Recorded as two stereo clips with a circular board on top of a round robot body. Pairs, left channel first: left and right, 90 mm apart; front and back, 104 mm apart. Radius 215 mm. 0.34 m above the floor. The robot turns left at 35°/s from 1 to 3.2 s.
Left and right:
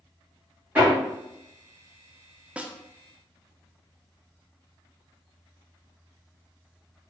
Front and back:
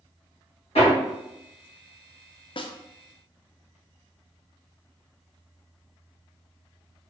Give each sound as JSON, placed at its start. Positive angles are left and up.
{"t": 0.8, "sound": "hammering", "azimuth_deg": -15, "distance_m": 1.8}
{"t": 2.6, "sound": "a snare drum", "azimuth_deg": -15, "distance_m": 0.6}